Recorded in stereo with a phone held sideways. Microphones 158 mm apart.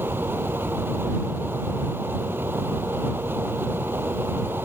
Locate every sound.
0.0 s a fan: 15° right (ahead or behind)